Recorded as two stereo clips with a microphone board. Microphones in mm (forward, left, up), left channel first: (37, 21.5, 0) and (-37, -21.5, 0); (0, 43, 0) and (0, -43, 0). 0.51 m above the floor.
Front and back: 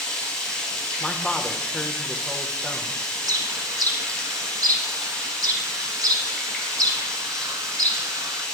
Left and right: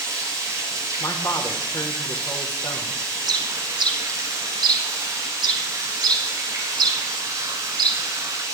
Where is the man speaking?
105° left, 1.1 m.